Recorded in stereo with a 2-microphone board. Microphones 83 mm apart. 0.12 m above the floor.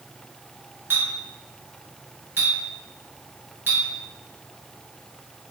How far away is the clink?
About 1.2 m.